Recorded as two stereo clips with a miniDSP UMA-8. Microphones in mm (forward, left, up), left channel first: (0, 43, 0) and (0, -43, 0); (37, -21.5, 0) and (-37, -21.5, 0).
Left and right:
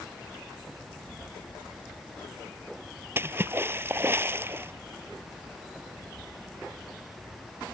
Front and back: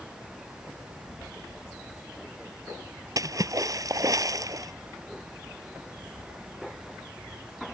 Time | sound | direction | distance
3.2 | a splash | 150° right | ?